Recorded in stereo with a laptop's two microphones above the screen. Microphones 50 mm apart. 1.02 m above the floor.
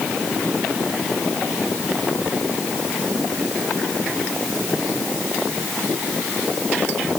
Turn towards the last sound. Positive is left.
No sound to turn to.